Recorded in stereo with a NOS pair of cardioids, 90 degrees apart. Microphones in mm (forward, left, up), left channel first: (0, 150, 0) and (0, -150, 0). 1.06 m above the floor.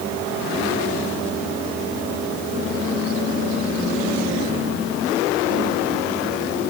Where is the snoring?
No snoring in this recording.